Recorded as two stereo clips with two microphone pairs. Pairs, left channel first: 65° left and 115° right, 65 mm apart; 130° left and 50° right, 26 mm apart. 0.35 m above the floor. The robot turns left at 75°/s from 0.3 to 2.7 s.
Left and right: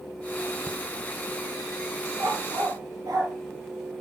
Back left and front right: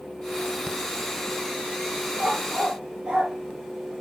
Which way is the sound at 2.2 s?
60° right.